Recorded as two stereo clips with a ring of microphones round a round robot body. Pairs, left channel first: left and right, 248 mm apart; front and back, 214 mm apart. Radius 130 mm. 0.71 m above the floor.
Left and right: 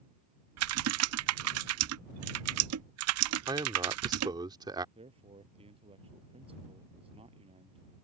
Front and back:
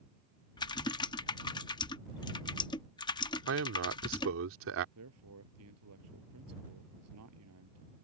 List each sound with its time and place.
0.6 s typing on a keyboard: 70° right
3.5 s a man speaking: 165° right
5.0 s a man speaking: 160° right